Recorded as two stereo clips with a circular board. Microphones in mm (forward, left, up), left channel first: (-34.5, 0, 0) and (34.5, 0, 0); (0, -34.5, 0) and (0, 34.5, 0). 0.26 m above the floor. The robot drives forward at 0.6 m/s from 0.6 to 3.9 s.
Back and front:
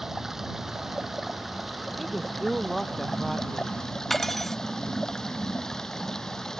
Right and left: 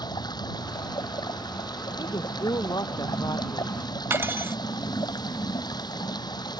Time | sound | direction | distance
0.0 | running water | 85° right | ?
2.0 | a woman speaking | 85° right | ?
4.1 | cutlery clinking | 95° left | ?